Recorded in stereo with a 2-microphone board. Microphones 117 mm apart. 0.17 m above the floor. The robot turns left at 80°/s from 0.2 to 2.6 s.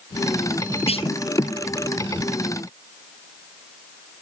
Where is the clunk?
65° left (ahead or behind); by 1.1 s 50° left (ahead or behind).